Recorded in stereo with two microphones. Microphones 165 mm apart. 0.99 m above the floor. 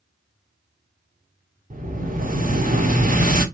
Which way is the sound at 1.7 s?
55° right (ahead or behind).